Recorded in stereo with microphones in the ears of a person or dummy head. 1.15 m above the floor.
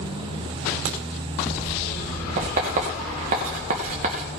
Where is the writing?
40° right (ahead or behind), 2.5 m.